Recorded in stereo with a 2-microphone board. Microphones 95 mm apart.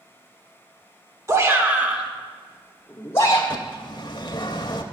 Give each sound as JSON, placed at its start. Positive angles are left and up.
{"t": 1.3, "sound": "a shout", "side_deg": -30, "distance_m": 1.1}
{"t": 3.5, "sound": "a bird", "side_deg": 45, "distance_m": 0.7}